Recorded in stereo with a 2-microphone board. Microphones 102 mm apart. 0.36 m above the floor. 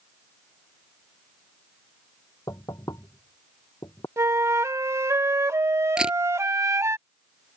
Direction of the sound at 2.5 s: 40° left (ahead or behind).